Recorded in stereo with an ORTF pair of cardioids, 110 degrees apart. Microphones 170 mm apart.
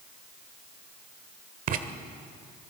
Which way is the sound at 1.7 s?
55° right.